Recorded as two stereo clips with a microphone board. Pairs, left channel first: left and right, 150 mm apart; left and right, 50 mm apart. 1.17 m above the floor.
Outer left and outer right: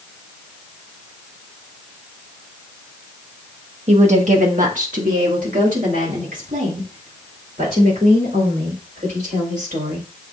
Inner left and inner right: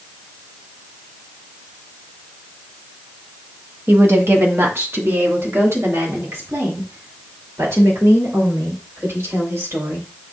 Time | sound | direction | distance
3.9 | a woman speaking | 50° right (ahead or behind) | 0.9 m